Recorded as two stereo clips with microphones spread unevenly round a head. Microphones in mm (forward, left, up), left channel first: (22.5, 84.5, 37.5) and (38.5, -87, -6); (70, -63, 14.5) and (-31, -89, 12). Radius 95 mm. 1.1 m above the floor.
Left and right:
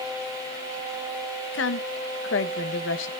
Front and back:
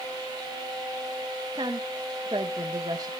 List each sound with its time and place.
1.5 s a woman speaking: 125° left, 0.8 m